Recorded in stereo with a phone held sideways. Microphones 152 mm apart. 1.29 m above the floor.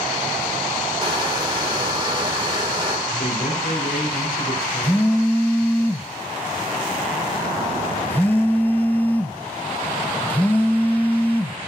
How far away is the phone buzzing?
About 0.7 m.